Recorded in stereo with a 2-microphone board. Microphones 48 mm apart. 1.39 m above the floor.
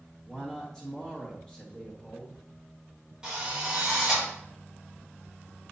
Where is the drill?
15° right (ahead or behind), 3 m.